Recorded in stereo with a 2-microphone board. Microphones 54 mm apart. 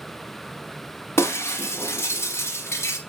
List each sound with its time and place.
1.2 s breaking glass: 55° left (ahead or behind), 1.4 m